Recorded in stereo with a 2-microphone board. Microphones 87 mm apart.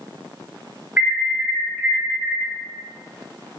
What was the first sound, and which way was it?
An alarm, 20° right (ahead or behind).